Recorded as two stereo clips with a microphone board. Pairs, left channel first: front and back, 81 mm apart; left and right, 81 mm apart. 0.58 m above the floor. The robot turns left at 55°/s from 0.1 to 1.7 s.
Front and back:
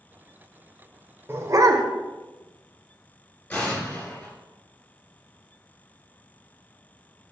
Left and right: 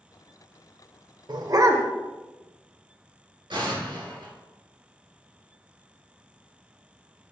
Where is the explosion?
65° right, 2.5 m.